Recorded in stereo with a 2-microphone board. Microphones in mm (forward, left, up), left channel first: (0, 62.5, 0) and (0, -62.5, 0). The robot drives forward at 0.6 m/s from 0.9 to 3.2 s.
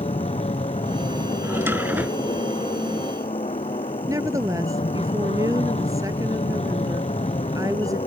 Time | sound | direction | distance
0.0 | an aircraft | 60° left (ahead or behind) | ?
1.4 | a drawer | 20° right (ahead or behind) | ?
4.1 | a woman speaking | 30° right (ahead or behind) | ?